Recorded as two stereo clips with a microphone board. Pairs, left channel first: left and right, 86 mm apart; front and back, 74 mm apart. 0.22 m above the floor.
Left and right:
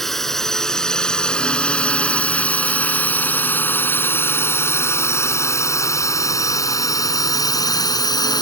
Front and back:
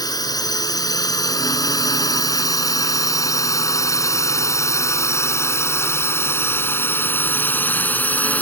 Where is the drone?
5° left; by 8.4 s 65° left.